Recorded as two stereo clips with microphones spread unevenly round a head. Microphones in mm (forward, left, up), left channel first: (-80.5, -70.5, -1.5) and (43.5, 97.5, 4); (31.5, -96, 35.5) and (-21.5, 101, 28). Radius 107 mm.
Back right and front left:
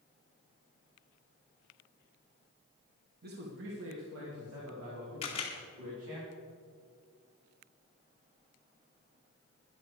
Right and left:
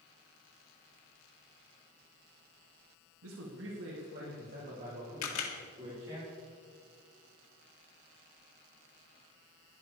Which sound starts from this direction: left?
A man speaking, at 3.2 s.